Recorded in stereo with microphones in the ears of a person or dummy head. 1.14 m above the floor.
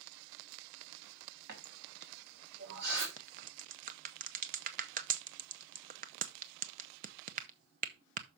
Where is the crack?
40° right (ahead or behind), 0.7 m.